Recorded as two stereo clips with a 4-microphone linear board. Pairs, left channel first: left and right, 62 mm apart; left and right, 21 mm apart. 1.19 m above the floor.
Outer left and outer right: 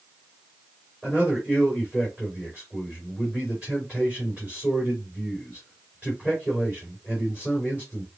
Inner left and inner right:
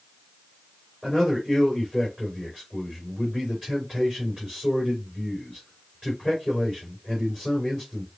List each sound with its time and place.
1.0 s a man speaking: 15° right (ahead or behind), 3 m